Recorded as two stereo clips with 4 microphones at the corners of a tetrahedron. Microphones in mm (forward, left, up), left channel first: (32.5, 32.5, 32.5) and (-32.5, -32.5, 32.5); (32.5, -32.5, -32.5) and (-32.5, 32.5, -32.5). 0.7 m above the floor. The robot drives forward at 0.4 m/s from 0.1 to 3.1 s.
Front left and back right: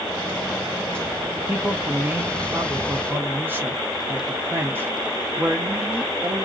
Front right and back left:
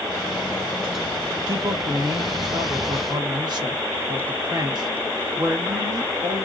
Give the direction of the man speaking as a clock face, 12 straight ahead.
7 o'clock.